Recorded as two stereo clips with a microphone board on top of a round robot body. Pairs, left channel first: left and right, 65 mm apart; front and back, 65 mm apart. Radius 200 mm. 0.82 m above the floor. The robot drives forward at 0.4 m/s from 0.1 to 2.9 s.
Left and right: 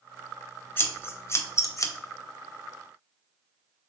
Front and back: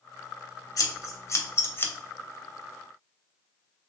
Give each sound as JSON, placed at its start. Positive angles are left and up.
{"t": 0.8, "sound": "scissors", "azimuth_deg": 30, "distance_m": 1.0}